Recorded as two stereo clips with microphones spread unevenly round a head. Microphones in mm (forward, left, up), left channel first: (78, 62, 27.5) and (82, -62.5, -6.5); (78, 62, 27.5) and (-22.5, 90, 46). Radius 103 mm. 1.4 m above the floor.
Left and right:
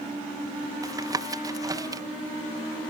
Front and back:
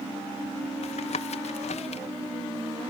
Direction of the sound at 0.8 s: 25° right.